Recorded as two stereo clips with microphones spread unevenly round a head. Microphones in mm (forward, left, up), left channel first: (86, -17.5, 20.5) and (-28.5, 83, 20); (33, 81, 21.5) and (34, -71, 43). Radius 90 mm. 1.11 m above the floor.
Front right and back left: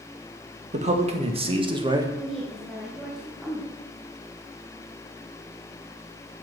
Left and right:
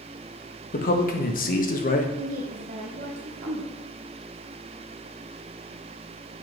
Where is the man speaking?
100° left, 1.8 m; by 2.1 s 75° left, 1.6 m.